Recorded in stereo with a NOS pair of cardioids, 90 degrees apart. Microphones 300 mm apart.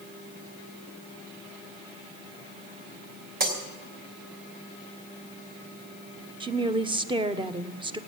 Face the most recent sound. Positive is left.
turn(degrees=-15)